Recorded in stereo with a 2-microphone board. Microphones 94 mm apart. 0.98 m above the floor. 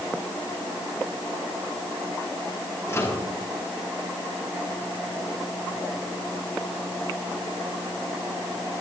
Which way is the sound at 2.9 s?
30° left (ahead or behind).